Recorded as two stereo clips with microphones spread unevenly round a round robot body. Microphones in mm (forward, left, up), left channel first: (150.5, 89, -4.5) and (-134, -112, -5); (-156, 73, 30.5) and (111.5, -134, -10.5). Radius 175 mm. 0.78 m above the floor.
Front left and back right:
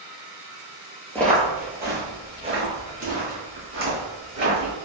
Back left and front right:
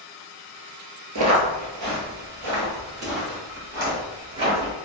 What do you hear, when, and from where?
1.1 s footsteps: 45° right, 0.9 m; by 4.7 s 85° right, 2.5 m